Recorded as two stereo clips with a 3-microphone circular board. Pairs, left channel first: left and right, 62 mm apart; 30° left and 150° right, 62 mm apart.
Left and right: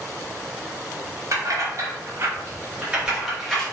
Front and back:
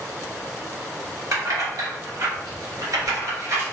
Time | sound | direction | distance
1.3 | keys jangling | 120° right | 1.2 m